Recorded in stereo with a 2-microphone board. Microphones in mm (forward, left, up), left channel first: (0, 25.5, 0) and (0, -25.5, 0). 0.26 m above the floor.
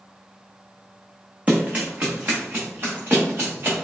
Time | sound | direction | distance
1.5 | running footsteps | 25° right (ahead or behind) | 1.3 m